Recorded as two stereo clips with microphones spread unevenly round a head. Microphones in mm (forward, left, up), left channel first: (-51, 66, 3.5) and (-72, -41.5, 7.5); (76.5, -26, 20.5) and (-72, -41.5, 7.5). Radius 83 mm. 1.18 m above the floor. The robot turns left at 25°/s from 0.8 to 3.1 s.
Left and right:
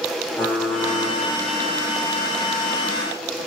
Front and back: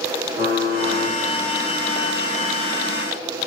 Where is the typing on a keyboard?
150° left, 4 m; by 1.2 s 145° left, 4 m.